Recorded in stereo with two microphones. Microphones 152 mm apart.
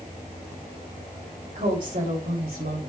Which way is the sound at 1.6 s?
60° right (ahead or behind).